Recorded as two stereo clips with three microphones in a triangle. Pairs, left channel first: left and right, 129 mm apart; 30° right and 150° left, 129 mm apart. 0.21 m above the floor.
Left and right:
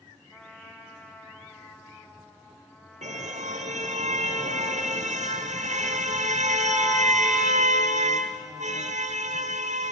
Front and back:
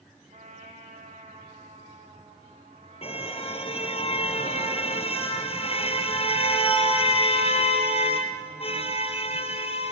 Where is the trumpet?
175° left, 3 m.